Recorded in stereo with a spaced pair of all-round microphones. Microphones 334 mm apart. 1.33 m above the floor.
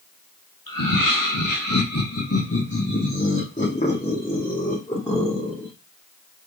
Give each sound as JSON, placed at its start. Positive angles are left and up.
{"t": 0.7, "sound": "laughter", "side_deg": 85, "distance_m": 1.9}